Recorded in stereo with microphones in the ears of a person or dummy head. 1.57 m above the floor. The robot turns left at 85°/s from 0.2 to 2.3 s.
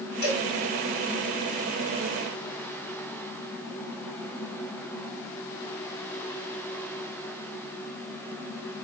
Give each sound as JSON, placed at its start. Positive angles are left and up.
{"t": 0.2, "sound": "a cowbell", "side_deg": 50, "distance_m": 3.0}